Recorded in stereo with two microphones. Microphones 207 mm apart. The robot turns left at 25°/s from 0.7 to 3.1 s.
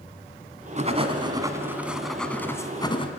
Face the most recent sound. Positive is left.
turn(degrees=155)